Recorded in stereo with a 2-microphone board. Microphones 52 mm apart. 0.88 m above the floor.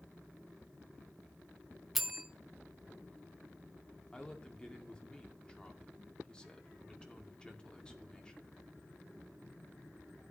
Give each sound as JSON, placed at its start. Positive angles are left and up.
{"t": 1.9, "sound": "a bell", "side_deg": 0, "distance_m": 1.0}
{"t": 4.1, "sound": "a woman speaking", "side_deg": 20, "distance_m": 2.0}